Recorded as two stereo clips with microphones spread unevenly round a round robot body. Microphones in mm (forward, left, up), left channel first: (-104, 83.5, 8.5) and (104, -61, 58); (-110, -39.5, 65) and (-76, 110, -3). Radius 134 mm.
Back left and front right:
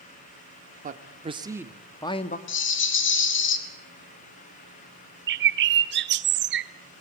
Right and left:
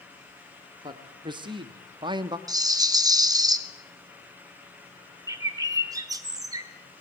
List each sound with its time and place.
0.8 s a man speaking: 25° left, 1.9 m; by 2.4 s 105° left, 1.3 m
2.5 s a rattle: 125° left, 2 m
5.3 s a bird: 15° left, 0.9 m